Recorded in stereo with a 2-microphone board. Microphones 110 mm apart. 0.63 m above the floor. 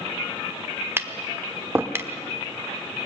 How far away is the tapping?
About 1.0 m.